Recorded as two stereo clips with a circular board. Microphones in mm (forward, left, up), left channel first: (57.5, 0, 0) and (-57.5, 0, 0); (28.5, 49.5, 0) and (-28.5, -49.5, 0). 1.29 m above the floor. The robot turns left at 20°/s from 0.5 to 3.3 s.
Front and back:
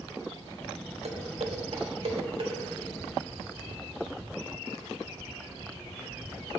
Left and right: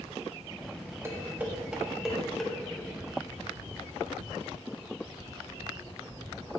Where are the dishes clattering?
175° left, 1.1 m; by 2.5 s 145° left, 1.1 m.